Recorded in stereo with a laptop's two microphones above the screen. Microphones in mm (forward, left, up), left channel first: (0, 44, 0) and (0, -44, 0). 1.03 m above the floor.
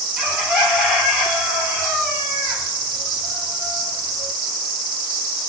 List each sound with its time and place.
0.2 s a bird: 10° right (ahead or behind), 2.5 m